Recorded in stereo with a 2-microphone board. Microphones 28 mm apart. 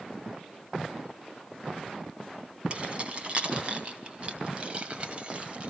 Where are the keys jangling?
40° right (ahead or behind), 3.5 m.